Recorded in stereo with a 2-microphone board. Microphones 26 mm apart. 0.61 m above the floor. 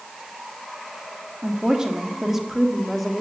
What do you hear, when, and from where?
1.4 s a woman speaking: 30° right (ahead or behind), 1.3 m; by 3.2 s 5° left (ahead or behind), 1.6 m